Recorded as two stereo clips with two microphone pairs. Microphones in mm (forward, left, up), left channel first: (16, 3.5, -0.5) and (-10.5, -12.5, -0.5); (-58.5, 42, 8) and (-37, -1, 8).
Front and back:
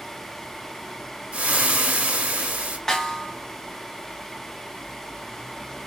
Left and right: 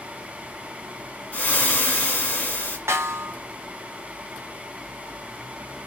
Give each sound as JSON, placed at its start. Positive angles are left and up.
{"t": 1.3, "sound": "frying", "azimuth_deg": 180, "distance_m": 1.4}
{"t": 2.9, "sound": "a snare drum", "azimuth_deg": -40, "distance_m": 0.9}